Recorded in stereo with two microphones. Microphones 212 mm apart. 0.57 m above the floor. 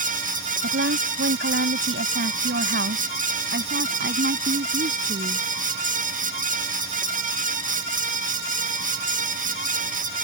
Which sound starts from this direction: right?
A woman speaking, at 0.6 s.